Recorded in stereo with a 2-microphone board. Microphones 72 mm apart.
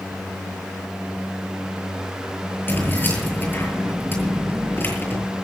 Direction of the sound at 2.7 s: 30° left (ahead or behind).